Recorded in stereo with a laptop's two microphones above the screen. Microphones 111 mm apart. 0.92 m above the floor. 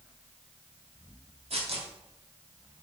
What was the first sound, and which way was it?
Tearing paper, 70° right (ahead or behind).